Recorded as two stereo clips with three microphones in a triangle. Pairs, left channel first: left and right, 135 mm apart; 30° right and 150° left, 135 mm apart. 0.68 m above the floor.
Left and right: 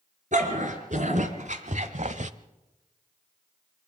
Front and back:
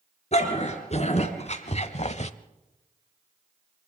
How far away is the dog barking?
About 3.5 m.